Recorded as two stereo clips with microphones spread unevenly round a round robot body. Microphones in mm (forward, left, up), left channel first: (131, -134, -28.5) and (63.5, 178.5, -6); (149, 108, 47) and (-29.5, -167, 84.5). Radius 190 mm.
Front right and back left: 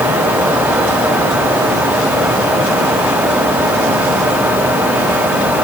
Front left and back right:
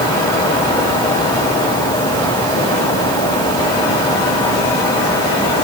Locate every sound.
Only background noise.